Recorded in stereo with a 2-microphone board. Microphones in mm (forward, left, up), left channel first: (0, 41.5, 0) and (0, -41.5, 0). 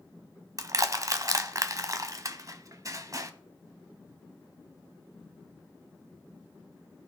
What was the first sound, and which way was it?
Crushing, 45° right (ahead or behind).